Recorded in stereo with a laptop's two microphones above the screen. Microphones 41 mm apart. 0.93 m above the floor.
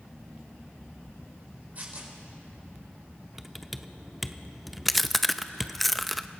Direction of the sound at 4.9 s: Centre (ahead or behind).